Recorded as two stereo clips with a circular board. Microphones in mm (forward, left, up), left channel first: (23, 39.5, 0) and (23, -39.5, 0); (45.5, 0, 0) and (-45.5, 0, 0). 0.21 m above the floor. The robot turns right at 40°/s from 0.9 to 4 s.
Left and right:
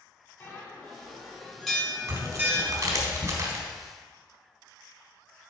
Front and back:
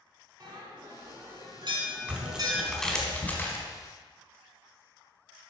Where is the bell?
145° left, 2.0 m; by 3.1 s 130° right, 2.0 m.